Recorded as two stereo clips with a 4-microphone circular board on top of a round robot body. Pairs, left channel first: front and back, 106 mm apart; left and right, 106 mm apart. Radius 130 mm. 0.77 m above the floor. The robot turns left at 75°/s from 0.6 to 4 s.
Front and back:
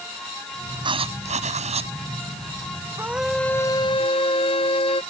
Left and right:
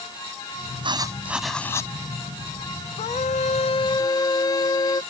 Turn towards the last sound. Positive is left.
turn(degrees=35)